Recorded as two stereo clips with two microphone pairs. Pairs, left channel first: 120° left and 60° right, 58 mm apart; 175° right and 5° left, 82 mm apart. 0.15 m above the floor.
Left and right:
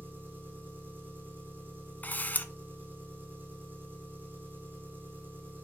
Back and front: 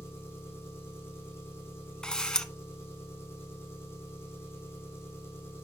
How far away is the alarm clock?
I don't hear an alarm clock.